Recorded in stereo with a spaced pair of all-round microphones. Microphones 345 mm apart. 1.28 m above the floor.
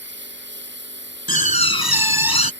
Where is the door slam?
90° left.